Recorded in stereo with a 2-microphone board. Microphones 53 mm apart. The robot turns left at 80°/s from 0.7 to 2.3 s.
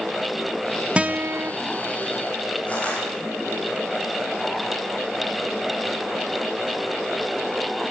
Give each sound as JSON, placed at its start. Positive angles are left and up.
{"t": 1.0, "sound": "a guitar", "azimuth_deg": -25, "distance_m": 1.1}
{"t": 2.7, "sound": "crushing", "side_deg": 30, "distance_m": 6.0}